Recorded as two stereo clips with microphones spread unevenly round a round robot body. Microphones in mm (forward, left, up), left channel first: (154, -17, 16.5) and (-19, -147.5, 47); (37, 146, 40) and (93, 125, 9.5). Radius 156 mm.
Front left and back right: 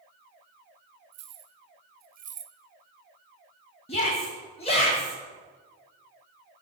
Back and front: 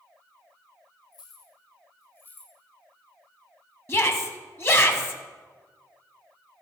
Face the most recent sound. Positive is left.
turn(degrees=100)